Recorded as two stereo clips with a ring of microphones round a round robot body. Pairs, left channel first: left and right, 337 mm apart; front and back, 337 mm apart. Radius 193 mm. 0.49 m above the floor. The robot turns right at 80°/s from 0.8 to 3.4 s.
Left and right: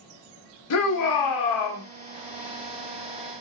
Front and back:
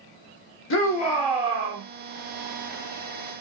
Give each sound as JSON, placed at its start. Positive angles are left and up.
{"t": 0.7, "sound": "a shout", "azimuth_deg": 50, "distance_m": 1.1}